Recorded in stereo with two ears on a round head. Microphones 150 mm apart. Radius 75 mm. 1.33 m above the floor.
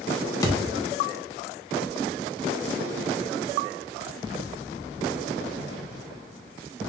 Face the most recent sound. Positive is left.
turn(degrees=25)  # may be behind; listen again after turning